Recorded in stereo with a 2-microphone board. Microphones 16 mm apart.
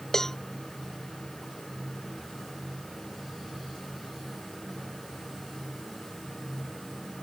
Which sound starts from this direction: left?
A cowbell, at 0.1 s.